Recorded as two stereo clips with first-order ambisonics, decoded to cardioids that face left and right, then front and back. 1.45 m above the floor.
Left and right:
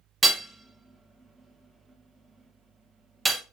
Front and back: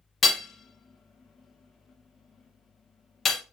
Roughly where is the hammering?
Ahead right.